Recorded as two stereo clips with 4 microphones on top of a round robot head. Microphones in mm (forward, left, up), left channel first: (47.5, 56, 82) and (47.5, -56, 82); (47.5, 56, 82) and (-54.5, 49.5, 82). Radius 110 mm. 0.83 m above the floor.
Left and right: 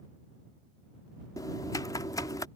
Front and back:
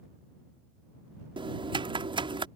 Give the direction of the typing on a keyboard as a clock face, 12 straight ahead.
7 o'clock.